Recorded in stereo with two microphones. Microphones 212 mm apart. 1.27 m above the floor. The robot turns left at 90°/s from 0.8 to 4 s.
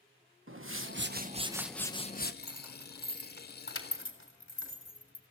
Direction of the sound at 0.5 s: 100° right.